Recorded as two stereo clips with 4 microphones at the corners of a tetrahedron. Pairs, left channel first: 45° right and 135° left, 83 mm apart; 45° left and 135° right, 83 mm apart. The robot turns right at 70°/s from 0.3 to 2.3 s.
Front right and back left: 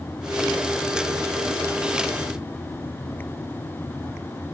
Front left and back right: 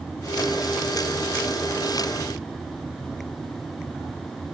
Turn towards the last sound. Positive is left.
No sound to turn to.